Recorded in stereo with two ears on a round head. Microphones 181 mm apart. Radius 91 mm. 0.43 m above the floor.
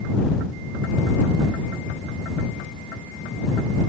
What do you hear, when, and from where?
Only background noise.